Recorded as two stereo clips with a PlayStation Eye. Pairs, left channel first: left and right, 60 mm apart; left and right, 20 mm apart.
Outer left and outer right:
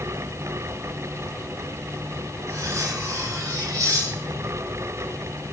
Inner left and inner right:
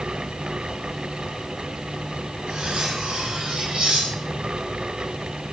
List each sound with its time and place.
2.5 s cutlery clinking: 75° right (ahead or behind), 4 m